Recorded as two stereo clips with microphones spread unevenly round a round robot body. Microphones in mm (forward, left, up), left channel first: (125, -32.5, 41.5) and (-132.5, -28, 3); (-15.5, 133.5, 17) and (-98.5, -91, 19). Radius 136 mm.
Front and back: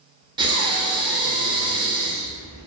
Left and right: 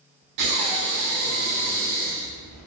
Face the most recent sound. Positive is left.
turn(degrees=-105)